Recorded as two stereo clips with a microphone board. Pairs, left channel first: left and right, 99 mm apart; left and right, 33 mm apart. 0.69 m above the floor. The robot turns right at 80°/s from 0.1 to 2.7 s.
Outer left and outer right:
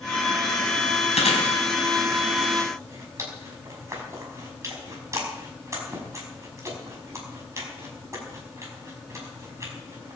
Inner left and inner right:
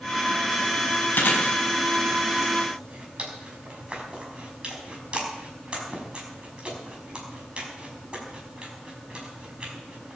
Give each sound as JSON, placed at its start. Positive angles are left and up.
{"t": 1.1, "sound": "chewing", "side_deg": 80, "distance_m": 5.5}